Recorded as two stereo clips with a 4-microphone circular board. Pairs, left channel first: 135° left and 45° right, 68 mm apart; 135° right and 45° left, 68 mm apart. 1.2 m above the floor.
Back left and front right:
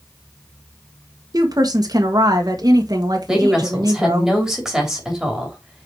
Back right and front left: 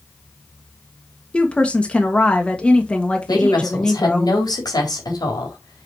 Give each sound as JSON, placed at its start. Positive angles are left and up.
{"t": 1.3, "sound": "a woman speaking", "azimuth_deg": -60, "distance_m": 1.4}
{"t": 3.3, "sound": "a woman speaking", "azimuth_deg": -130, "distance_m": 3.5}